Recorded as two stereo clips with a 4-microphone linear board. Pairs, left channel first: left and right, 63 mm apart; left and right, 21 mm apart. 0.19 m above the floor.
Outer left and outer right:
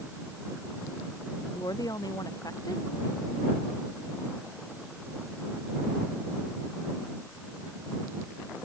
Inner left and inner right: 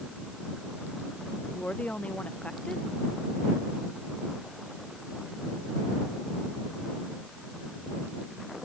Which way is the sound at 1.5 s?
80° left.